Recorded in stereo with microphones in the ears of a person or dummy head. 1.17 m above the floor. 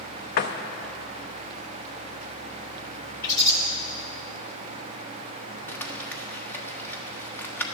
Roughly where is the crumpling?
Centre.